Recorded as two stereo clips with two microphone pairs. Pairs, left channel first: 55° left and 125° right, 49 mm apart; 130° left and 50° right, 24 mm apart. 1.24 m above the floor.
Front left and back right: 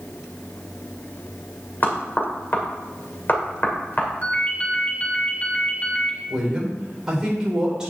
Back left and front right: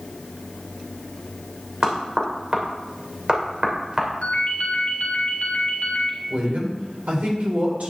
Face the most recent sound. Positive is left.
turn(degrees=-45)